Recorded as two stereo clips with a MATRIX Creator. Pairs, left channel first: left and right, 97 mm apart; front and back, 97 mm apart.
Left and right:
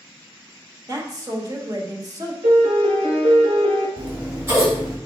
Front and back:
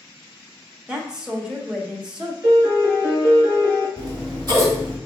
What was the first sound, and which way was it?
A woman speaking, 105° right.